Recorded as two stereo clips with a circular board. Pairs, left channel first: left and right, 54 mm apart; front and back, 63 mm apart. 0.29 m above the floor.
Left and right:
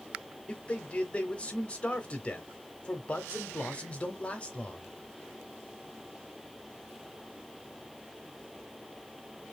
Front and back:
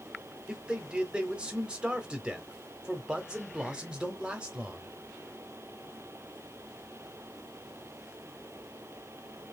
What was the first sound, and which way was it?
A man speaking, 125° left.